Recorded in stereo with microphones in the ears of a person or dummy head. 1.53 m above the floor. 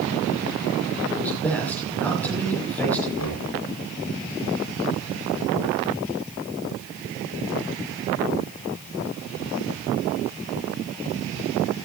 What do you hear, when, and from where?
1.1 s a man speaking: 5° left (ahead or behind), 5.5 m
3.2 s knocking: 85° left, 5 m